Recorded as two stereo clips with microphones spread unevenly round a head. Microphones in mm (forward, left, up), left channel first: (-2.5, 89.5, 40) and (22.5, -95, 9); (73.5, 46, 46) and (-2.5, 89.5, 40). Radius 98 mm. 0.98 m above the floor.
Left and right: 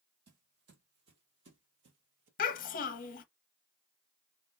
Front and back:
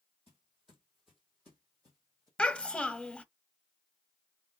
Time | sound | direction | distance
0.3 | footsteps | 125° right | 2.0 m
2.4 | a child speaking | 50° left | 0.7 m